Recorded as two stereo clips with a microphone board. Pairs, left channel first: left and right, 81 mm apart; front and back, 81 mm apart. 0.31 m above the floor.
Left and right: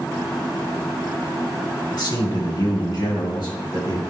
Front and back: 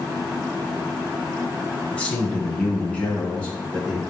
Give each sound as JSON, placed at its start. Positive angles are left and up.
{"t": 1.9, "sound": "a man speaking", "azimuth_deg": 75, "distance_m": 1.8}